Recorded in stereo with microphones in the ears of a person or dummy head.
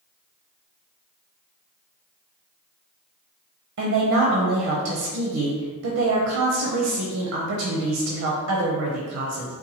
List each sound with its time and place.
3.8 s a woman speaking: 65° right (ahead or behind), 0.6 m